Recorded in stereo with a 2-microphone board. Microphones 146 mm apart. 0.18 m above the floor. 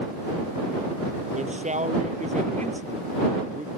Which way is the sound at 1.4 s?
55° right (ahead or behind).